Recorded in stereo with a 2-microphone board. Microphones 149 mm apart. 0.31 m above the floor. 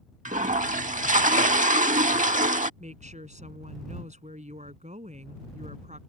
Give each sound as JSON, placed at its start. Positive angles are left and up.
{"t": 0.2, "sound": "a toilet flushing", "side_deg": -60}
{"t": 2.8, "sound": "a woman speaking", "side_deg": -55}